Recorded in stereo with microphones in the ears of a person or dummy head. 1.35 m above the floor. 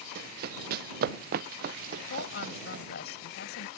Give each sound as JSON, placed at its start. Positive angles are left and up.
{"t": 0.1, "sound": "running footsteps", "side_deg": -55}
{"t": 2.1, "sound": "a woman speaking", "side_deg": 55}